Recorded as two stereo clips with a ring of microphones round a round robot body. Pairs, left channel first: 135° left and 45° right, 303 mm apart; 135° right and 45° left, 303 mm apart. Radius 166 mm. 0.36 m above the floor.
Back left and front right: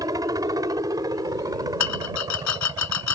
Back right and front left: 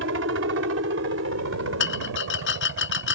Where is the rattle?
170° left.